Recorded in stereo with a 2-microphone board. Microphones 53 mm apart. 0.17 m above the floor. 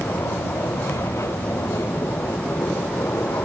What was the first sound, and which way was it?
An aircraft, 75° left (ahead or behind).